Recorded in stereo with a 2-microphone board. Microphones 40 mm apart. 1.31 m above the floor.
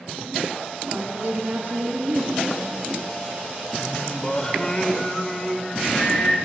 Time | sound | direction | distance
0.9 | a woman speaking | 75° right (ahead or behind) | 3 m
3.8 | singing | 20° left (ahead or behind) | 1.0 m